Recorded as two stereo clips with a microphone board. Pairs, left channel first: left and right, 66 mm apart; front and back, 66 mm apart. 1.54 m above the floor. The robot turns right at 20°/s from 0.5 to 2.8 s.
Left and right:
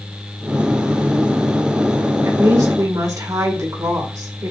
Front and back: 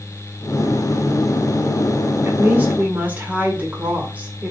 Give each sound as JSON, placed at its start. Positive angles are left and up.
{"t": 2.2, "sound": "a woman speaking", "azimuth_deg": -125, "distance_m": 2.0}